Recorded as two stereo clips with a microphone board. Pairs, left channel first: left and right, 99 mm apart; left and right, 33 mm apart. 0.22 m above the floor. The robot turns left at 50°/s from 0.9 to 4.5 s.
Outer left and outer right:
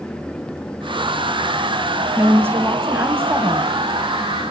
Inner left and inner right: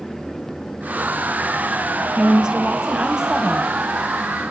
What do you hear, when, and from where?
2.2 s a woman speaking: 20° right (ahead or behind), 1.6 m; by 3.8 s 15° right (ahead or behind), 1.6 m